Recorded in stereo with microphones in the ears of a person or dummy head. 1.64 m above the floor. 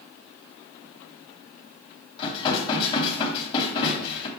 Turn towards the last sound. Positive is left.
turn(degrees=35)  # may be behind; listen again after turning